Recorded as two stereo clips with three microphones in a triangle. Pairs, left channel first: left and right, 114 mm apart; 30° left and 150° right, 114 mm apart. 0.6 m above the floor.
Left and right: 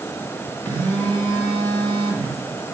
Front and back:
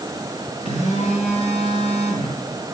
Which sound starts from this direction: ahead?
A phone buzzing, at 0.7 s.